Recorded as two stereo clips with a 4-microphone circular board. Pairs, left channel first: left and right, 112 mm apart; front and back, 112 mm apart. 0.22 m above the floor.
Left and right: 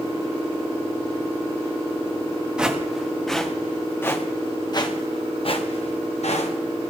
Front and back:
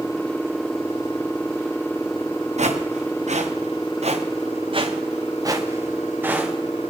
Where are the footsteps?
170° right, 2.5 m; by 6.5 s 100° left, 2 m.